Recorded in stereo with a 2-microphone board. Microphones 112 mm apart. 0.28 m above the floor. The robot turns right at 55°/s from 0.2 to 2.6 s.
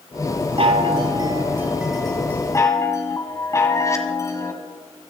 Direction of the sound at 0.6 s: 75° right.